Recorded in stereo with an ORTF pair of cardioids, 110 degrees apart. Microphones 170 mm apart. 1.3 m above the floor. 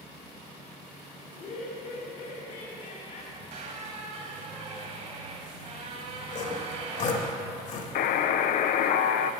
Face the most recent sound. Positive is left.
turn(degrees=60)